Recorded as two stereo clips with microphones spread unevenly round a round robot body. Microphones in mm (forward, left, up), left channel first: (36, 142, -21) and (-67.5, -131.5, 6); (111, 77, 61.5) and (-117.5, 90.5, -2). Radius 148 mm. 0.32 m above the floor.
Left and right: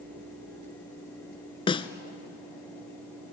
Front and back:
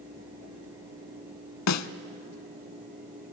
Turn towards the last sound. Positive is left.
turn(degrees=-5)